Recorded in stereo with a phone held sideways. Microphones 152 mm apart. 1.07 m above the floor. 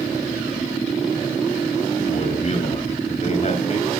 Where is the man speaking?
50° left (ahead or behind), 7 m.